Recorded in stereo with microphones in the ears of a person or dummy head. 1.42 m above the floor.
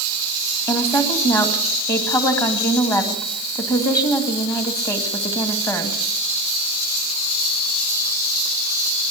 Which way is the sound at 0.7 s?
15° left (ahead or behind).